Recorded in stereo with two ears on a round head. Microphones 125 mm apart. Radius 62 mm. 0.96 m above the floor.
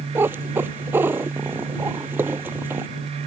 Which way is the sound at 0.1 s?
15° right (ahead or behind).